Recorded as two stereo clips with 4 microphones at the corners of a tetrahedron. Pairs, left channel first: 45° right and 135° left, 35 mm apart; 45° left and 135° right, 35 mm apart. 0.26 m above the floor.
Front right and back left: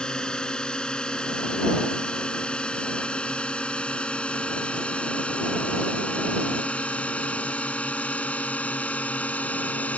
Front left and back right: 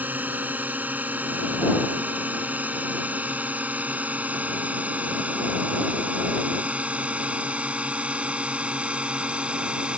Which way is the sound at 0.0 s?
110° right.